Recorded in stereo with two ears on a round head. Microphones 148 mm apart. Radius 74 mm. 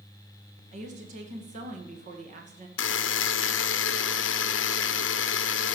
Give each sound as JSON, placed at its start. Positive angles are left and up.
{"t": 0.7, "sound": "a woman speaking", "side_deg": -45, "distance_m": 2.0}
{"t": 2.8, "sound": "a buzzer", "side_deg": 85, "distance_m": 0.7}